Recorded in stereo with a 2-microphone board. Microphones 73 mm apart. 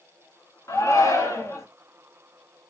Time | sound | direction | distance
0.7 | a shout | 40° left (ahead or behind) | 1.3 m